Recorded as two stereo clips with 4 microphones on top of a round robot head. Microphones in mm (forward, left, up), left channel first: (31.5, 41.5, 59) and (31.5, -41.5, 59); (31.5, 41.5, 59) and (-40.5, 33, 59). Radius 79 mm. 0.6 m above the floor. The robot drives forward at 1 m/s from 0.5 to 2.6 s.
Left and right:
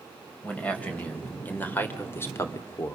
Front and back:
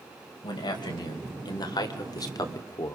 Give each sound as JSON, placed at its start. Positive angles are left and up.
{"t": 0.4, "sound": "a man speaking", "azimuth_deg": 15, "distance_m": 3.5}